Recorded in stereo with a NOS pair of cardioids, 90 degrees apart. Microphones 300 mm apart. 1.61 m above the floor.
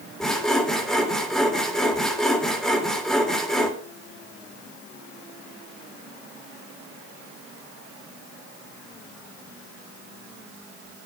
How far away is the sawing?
About 3 m.